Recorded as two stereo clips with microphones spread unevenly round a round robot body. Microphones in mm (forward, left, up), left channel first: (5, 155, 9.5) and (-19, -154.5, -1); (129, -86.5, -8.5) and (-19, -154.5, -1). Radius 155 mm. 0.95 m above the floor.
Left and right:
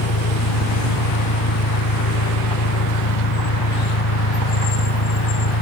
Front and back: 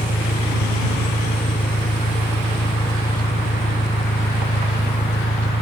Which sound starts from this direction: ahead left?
An engine running, at 0.0 s.